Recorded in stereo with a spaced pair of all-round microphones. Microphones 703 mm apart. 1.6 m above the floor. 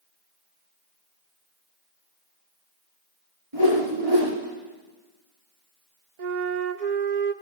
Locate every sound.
3.5 s a whoosh: 45° right (ahead or behind), 3 m
6.2 s a flute: 70° right (ahead or behind), 0.8 m